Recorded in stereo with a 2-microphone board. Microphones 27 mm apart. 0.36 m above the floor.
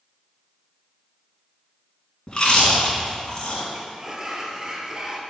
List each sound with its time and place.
2.3 s chewing: 30° left (ahead or behind), 2.5 m
3.7 s a sliding door: 25° right (ahead or behind), 1.1 m